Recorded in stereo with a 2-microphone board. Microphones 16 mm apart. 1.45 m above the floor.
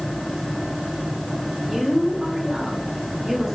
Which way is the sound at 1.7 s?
30° right (ahead or behind).